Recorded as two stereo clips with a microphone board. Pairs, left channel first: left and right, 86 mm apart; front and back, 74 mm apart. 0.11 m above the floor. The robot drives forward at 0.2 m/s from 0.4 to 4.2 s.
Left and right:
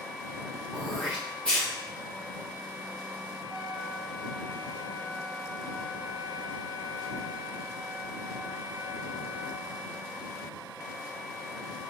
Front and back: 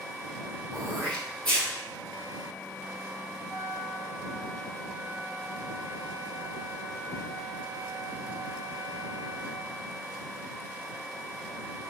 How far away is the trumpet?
About 1.6 m.